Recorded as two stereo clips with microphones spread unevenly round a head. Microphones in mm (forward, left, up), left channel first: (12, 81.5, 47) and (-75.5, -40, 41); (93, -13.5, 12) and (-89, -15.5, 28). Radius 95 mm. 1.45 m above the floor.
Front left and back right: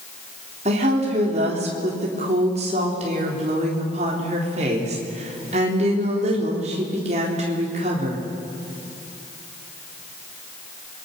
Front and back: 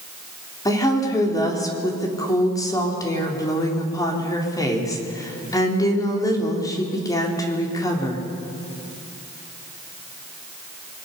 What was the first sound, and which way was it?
A woman speaking, 70° right.